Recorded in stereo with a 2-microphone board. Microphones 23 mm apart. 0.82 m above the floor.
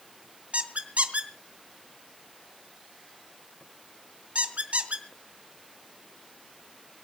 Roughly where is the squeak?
Right.